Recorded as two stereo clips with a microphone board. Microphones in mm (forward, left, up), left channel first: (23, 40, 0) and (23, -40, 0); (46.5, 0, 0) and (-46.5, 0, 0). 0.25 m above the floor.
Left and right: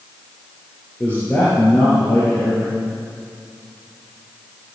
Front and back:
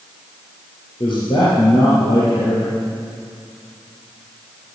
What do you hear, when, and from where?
1.0 s a man speaking: 20° left, 5 m